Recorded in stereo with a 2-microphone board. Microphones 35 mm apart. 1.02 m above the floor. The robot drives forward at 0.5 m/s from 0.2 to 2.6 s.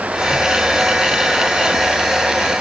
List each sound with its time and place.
Only background noise.